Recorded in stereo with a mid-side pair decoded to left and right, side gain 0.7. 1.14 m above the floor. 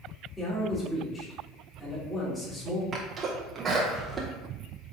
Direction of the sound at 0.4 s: 15° left.